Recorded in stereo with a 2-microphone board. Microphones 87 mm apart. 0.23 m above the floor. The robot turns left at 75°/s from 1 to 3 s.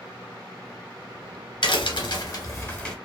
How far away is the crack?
About 0.8 m.